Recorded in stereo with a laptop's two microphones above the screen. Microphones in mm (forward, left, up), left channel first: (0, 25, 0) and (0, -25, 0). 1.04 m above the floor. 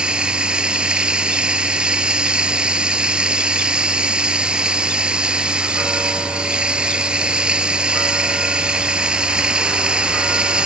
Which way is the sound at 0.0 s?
20° right (ahead or behind).